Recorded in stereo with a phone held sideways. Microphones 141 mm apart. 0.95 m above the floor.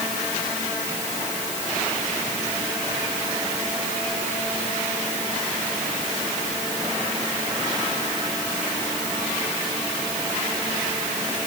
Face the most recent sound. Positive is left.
No sound to turn to.